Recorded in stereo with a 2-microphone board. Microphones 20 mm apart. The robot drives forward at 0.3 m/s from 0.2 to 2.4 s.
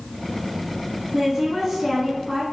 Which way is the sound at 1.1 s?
15° right (ahead or behind).